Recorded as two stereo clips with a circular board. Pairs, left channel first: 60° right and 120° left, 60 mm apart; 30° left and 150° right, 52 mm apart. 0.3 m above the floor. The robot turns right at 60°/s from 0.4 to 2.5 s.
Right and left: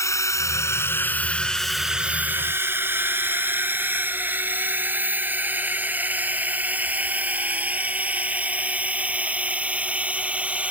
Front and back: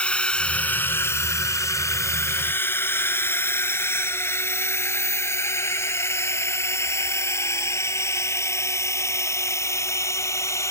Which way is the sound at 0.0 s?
35° right.